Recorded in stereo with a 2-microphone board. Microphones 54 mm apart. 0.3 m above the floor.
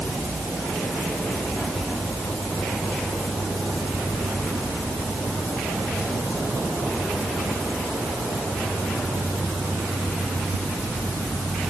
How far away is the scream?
No scream in this recording.